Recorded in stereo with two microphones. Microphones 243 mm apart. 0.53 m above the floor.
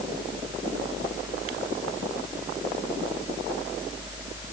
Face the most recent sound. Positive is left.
No sound to turn to.